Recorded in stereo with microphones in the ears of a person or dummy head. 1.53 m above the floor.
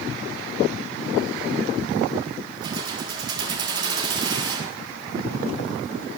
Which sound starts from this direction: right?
Keys jangling, at 2.6 s.